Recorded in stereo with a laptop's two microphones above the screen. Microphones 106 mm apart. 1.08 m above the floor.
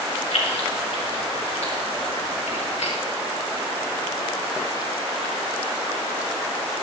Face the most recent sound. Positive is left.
turn(degrees=85)